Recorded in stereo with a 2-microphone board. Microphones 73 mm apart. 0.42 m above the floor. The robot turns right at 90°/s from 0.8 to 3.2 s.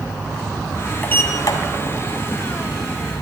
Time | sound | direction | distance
1.0 | a sliding door | 20° left | 1.8 m